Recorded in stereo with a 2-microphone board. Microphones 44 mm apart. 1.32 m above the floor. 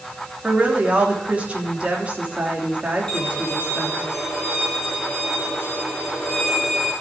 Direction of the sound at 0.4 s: 30° right (ahead or behind).